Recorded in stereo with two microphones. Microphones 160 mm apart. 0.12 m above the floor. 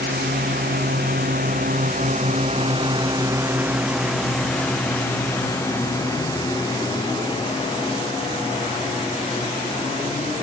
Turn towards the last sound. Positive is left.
turn(degrees=35)  # may be behind; listen again after turning